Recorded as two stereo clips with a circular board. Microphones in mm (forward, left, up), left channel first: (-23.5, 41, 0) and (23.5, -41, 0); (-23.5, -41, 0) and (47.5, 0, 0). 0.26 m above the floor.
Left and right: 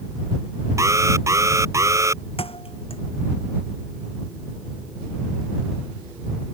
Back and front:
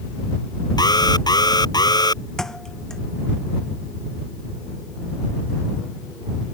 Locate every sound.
0.8 s an alarm: 115° right
2.4 s a thud: 125° left